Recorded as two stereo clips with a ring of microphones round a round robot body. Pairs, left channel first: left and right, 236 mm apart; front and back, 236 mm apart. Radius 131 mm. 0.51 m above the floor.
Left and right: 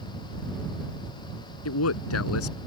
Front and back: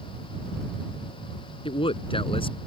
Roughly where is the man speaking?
Left.